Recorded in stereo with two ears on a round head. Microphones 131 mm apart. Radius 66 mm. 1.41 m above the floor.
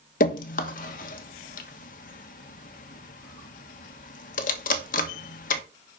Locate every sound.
0.2 s dripping: 55° left (ahead or behind), 1.3 m